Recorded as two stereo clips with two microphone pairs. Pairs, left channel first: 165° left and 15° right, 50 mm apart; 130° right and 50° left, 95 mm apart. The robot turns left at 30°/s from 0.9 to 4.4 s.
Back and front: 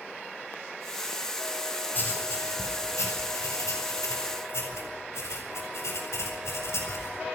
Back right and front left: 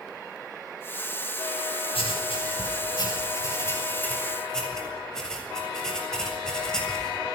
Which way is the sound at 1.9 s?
140° right.